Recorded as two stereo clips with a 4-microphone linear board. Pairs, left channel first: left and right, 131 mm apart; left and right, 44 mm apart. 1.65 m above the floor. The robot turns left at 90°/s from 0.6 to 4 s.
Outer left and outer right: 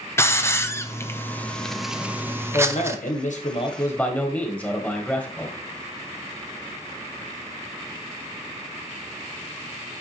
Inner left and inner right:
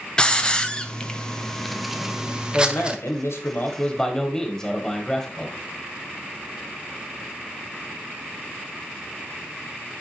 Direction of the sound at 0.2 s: 20° left (ahead or behind).